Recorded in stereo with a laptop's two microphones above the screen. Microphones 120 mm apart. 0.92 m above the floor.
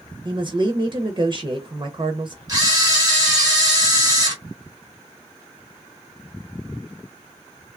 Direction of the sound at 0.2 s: 40° right (ahead or behind).